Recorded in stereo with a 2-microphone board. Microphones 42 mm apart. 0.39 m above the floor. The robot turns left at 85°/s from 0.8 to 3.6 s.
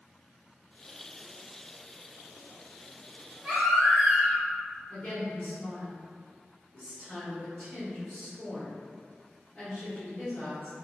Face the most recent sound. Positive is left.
turn(degrees=20)  # may be behind; listen again after turning